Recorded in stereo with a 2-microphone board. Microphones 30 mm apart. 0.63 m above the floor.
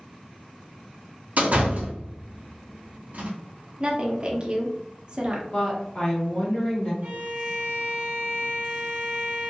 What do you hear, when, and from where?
1.4 s a door slam: 55° right (ahead or behind), 0.7 m
3.8 s a woman speaking: 30° right (ahead or behind), 0.6 m
5.5 s a woman speaking: 35° left (ahead or behind), 1.2 m
7.0 s a violin: 60° right (ahead or behind), 0.6 m